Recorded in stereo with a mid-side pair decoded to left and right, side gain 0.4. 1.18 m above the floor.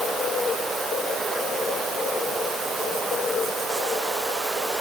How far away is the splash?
I don't hear a splash.